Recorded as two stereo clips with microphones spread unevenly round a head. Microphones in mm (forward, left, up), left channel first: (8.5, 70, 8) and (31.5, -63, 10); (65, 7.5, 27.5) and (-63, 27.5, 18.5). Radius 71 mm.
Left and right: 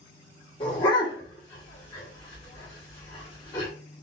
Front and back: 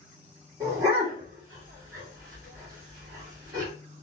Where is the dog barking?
120° left, 1.3 m.